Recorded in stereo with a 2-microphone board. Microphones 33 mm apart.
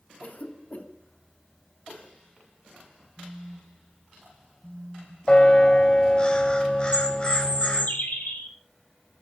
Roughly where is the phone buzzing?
Right.